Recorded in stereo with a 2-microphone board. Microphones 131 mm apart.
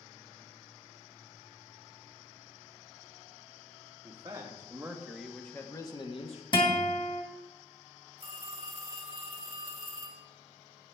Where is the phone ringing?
40° right (ahead or behind), 1.5 m.